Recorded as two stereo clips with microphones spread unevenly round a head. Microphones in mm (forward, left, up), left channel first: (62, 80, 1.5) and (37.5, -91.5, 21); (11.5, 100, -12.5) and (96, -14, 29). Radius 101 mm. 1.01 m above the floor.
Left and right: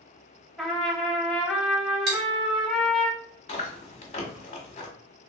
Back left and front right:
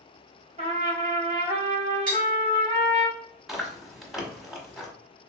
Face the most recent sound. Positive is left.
turn(degrees=30)